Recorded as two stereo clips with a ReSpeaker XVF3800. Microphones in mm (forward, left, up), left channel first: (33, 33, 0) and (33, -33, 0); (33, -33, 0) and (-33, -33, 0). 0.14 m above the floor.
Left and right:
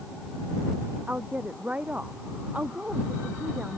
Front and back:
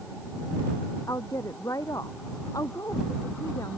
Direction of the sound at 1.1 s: 25° right.